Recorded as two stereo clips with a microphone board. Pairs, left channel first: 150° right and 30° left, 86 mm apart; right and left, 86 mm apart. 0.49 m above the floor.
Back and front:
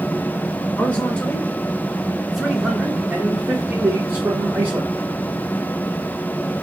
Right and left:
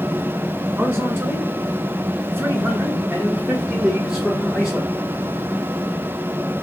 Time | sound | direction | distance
0.8 | a man speaking | 145° left | 1.7 m